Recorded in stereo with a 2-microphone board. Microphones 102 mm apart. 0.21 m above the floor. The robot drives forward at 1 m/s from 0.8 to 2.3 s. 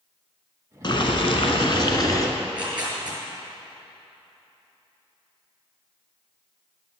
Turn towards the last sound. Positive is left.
turn(degrees=-10)  # may be behind; listen again after turning